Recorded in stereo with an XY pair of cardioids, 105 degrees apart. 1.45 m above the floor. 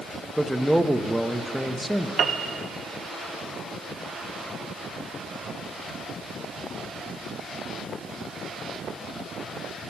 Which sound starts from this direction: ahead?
A man speaking, at 0.4 s.